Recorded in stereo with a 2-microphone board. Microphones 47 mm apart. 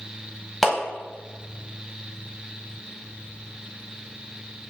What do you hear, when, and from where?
0.6 s a clap: 10° left (ahead or behind), 0.9 m